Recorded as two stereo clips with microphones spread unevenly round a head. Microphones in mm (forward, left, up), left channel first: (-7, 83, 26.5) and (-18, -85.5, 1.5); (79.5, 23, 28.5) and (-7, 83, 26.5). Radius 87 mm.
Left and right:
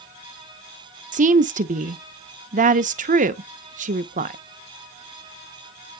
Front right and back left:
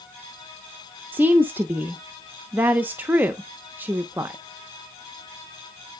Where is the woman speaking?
135° right, 0.7 m.